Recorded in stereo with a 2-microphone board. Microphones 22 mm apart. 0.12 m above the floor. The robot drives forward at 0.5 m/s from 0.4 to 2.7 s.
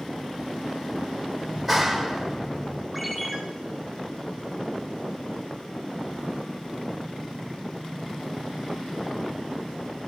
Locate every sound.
1.5 s a clap: 5° left (ahead or behind), 3.5 m
2.9 s a ringtone: 5° left (ahead or behind), 8 m